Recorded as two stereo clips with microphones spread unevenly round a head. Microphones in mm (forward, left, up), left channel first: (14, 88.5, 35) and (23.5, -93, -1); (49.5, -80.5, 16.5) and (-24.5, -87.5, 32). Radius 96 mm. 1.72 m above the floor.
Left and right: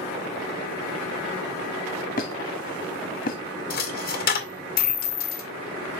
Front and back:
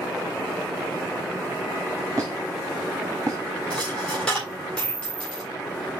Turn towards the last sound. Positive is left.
turn(degrees=95)